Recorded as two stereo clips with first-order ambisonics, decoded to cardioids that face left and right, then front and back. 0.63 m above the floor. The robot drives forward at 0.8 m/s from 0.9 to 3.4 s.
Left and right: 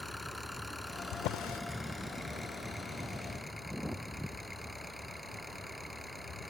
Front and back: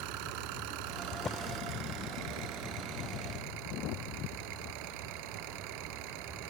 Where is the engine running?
Straight behind.